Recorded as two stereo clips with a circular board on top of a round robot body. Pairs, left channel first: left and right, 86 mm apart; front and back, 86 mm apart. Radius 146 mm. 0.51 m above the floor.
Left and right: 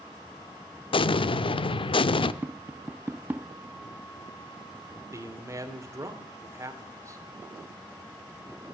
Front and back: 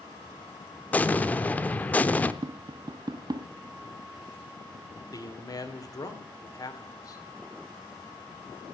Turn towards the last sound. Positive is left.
turn(degrees=-40)